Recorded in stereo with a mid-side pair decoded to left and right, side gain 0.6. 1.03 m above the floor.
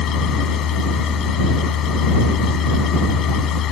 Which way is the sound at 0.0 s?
55° left.